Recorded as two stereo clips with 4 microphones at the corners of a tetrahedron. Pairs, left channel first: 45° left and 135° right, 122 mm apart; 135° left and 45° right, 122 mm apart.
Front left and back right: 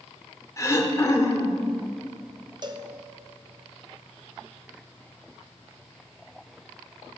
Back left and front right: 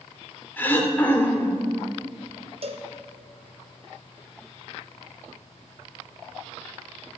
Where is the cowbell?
80° right, 0.8 m.